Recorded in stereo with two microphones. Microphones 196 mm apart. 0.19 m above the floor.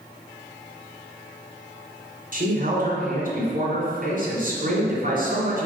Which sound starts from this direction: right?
A man speaking, at 2.3 s.